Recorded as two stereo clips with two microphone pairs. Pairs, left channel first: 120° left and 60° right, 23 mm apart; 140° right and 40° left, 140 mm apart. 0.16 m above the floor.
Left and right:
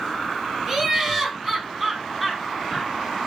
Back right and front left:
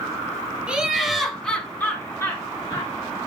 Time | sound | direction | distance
0.7 | laughter | 35° right | 1.3 m